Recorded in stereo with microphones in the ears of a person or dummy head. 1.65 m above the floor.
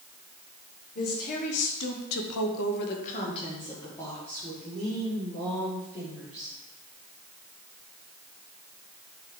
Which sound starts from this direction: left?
A woman speaking, at 0.9 s.